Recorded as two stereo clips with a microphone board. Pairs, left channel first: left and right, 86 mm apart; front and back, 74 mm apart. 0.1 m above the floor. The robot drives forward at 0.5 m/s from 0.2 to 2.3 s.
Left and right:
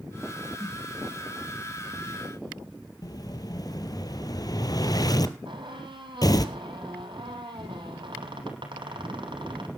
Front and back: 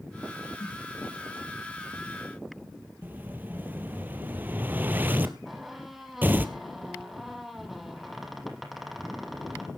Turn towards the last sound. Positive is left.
turn(degrees=-90)